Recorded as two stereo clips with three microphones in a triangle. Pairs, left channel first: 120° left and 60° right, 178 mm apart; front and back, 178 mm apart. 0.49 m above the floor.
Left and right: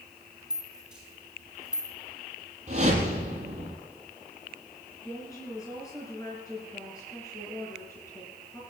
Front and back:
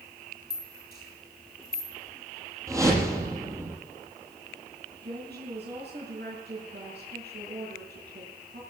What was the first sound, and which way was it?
A rattle, 25° left.